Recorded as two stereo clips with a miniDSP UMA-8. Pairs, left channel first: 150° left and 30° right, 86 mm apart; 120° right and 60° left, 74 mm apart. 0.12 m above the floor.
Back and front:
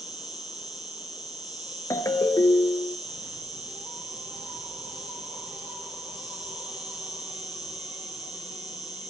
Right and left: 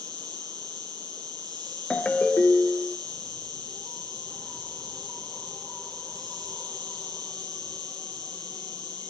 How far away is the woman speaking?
I don't hear a woman speaking.